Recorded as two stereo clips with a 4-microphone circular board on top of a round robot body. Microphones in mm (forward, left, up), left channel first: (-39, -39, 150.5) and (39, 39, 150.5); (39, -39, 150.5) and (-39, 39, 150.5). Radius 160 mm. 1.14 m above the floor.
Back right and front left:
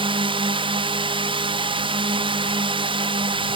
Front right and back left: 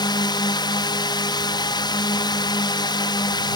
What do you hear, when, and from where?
0.0 s a drone: 5° left